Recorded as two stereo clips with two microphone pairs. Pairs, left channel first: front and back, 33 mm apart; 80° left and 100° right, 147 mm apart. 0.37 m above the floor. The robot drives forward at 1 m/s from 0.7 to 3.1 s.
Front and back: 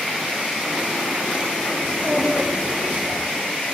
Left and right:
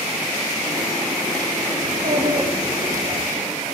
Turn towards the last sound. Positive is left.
turn(degrees=-135)